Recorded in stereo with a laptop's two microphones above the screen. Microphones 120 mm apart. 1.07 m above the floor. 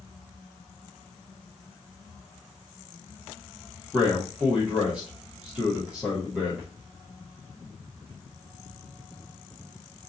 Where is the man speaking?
10° right (ahead or behind), 0.8 m.